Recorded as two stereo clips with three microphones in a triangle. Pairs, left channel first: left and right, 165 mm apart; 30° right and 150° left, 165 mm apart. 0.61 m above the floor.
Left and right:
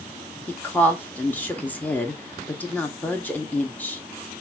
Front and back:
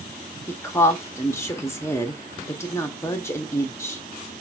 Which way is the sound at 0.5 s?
20° left.